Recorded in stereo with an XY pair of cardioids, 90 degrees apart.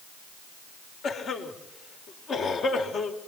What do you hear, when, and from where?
1.0 s a cough: 65° left, 5 m